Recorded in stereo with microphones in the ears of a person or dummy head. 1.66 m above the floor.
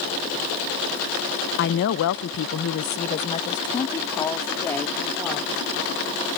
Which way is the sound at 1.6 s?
55° left (ahead or behind).